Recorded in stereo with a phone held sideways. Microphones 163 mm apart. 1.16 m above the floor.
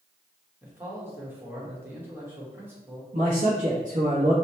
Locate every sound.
0.6 s a man speaking: 15° right (ahead or behind), 1.3 m
3.1 s a man speaking: 55° right (ahead or behind), 0.9 m